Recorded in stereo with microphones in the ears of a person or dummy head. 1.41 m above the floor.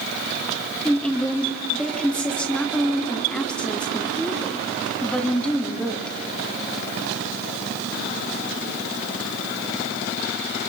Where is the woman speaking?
5° left (ahead or behind), 3 m.